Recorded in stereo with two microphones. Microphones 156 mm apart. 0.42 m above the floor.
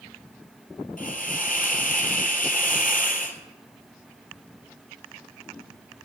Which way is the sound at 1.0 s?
60° left (ahead or behind).